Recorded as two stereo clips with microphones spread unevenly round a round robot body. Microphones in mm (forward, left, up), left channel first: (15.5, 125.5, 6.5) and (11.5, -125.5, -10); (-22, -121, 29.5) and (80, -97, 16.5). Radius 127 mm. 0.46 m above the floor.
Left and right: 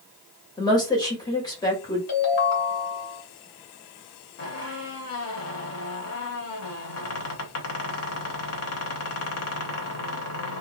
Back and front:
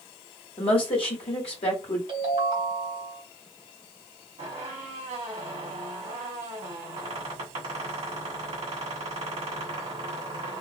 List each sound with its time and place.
0.6 s a woman speaking: 165° left, 1.6 m
2.1 s a ringtone: 50° left, 1.8 m
4.4 s a squeak: 55° left, 1.1 m